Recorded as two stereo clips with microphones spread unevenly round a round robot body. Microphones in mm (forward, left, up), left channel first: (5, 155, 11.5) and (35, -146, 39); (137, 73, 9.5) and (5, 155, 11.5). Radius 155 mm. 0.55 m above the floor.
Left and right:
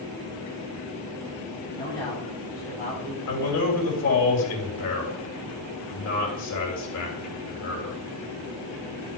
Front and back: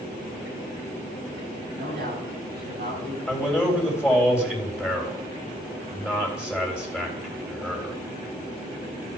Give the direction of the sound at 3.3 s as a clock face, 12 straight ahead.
10 o'clock.